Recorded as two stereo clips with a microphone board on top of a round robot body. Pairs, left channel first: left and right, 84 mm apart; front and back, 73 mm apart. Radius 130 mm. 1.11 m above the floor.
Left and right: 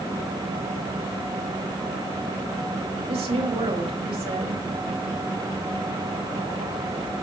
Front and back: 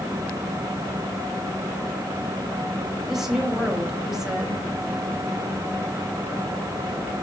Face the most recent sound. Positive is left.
turn(degrees=-95)